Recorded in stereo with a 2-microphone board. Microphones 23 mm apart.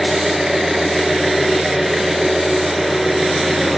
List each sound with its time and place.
0.0 s an engine running: 15° right (ahead or behind), 1.5 m